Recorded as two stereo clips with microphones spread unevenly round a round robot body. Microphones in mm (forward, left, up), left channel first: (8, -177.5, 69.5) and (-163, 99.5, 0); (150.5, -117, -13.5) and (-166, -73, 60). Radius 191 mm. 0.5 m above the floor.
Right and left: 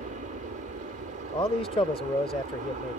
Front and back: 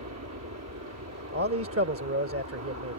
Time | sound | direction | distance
0.0 | an aircraft | 150° left | ?
1.3 | a man speaking | 135° right | ?